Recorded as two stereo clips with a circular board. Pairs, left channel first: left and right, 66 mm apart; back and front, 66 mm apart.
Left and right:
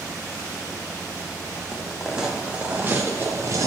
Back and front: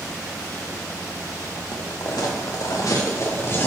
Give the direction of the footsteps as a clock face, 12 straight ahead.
6 o'clock.